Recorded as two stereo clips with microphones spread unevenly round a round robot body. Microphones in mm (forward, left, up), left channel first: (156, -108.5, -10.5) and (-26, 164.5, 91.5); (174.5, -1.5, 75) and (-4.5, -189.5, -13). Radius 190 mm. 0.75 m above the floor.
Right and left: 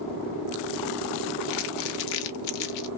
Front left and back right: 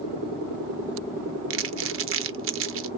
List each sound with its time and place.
1.5 s crumpling: 85° right, 0.5 m